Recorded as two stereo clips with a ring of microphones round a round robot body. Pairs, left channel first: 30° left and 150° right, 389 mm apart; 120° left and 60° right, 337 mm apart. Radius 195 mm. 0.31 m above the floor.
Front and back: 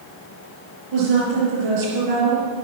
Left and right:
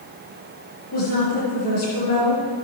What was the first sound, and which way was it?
A woman speaking, 175° left.